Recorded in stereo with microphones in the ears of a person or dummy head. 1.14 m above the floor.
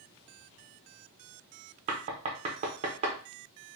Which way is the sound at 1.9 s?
30° right (ahead or behind).